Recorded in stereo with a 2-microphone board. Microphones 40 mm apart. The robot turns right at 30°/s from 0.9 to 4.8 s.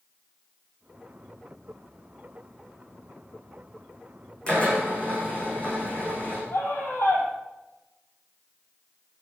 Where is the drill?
25° left (ahead or behind), 9 m; by 6.4 s 35° left (ahead or behind), 9 m.